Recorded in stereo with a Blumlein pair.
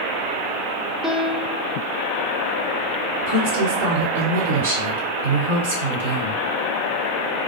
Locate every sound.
1.0 s a piano: 5° right, 0.8 m
3.2 s a woman speaking: 55° right, 1.6 m